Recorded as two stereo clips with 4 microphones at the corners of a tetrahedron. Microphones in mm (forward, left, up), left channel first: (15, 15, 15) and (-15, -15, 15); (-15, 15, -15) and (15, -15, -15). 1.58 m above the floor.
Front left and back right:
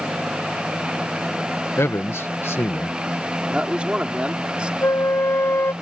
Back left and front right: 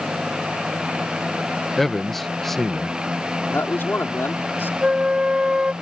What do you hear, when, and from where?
1.8 s a man speaking: 50° left
3.5 s a man speaking: 160° left
4.8 s a flute: 25° left